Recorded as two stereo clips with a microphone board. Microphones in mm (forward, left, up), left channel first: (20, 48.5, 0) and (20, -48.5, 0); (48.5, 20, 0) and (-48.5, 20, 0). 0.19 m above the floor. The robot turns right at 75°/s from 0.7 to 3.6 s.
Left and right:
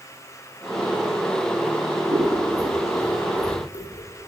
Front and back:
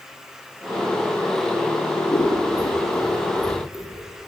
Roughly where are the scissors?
Ahead right.